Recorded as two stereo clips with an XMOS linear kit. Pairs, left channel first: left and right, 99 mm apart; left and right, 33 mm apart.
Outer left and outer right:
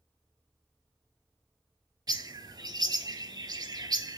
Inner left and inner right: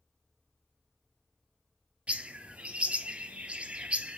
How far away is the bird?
About 0.5 m.